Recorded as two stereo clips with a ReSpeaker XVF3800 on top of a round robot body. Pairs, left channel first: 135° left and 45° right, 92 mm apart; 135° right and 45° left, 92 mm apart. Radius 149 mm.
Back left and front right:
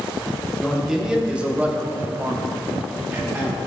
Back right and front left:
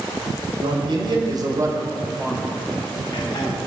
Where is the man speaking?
40° left, 2.0 m; by 3.6 s 105° right, 1.9 m.